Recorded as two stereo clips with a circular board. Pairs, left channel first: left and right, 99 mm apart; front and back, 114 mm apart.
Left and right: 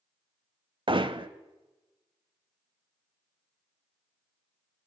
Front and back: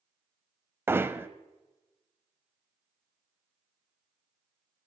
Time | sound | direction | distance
0.9 | hammering | 110° right | 0.6 m